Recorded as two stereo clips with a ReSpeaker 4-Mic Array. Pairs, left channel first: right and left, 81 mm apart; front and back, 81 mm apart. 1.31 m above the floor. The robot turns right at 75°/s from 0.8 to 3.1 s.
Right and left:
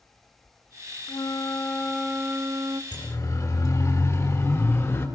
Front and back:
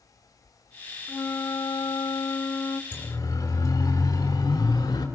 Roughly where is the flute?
Ahead right.